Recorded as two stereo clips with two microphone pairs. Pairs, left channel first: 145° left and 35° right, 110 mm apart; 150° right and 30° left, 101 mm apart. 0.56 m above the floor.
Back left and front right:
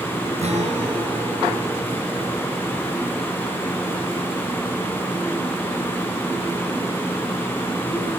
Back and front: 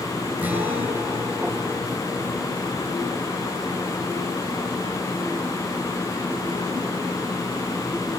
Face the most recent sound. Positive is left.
turn(degrees=-45)